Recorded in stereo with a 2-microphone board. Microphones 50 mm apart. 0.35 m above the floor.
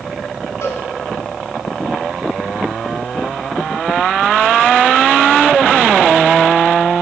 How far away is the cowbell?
About 1.9 m.